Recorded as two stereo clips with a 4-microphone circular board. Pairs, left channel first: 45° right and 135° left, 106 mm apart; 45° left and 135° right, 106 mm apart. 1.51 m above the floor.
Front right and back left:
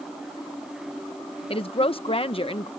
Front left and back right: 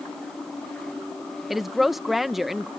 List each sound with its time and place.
1.5 s a woman speaking: 45° right